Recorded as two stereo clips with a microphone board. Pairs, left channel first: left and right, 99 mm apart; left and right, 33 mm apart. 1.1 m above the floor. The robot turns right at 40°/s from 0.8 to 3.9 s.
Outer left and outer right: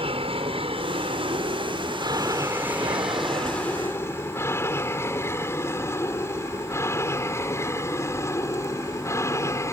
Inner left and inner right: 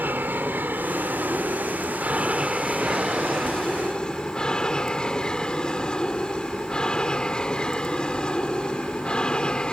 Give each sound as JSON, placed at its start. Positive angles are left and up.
{"t": 0.0, "sound": "an aircraft", "side_deg": -70}